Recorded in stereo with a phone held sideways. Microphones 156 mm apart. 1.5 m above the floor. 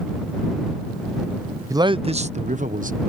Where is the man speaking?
20° right (ahead or behind); by 3.0 s 60° right (ahead or behind).